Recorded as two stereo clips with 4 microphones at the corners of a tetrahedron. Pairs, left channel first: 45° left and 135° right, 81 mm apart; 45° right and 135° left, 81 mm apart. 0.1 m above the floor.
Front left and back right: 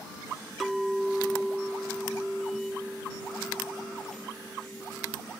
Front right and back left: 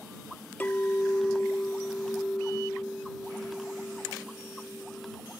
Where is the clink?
45° right.